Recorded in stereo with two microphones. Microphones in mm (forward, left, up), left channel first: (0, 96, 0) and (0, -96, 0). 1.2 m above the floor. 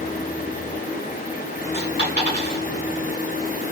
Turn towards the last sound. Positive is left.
turn(degrees=-50)  # may be behind; listen again after turning